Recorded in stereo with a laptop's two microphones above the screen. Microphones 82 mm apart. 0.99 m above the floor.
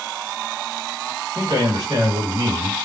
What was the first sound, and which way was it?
A man speaking, 60° right (ahead or behind).